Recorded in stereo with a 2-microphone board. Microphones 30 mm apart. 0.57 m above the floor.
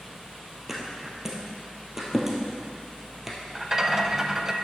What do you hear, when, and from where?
0.7 s a thud: 10° right (ahead or behind), 1.6 m
3.5 s a rattle: 20° right (ahead or behind), 0.5 m